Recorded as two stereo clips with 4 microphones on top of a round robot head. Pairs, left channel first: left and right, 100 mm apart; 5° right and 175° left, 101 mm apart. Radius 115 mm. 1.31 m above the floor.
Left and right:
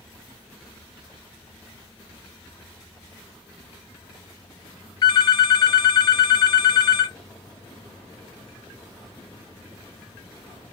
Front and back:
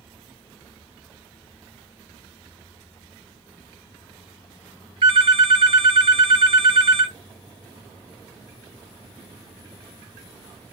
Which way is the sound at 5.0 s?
135° left.